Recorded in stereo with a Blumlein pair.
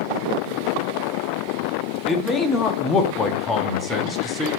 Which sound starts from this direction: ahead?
A man speaking, at 2.1 s.